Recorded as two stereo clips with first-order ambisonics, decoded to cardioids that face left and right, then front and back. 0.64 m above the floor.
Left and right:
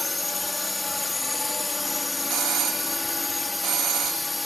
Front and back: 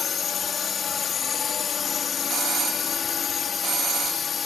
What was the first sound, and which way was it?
A drone, 20° left.